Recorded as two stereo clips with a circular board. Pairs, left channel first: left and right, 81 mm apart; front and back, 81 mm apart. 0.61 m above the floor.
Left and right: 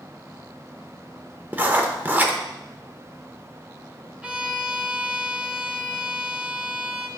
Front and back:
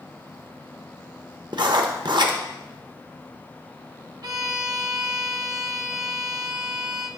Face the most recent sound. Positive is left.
turn(degrees=-165)